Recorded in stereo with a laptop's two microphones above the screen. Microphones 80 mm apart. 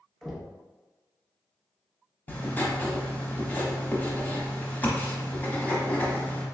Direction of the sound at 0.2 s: 5° left (ahead or behind).